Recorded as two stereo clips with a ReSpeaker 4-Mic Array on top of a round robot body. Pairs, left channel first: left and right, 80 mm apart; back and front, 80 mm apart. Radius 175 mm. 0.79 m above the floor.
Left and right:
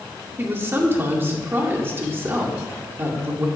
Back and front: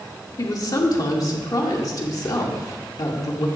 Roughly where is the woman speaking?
Behind right.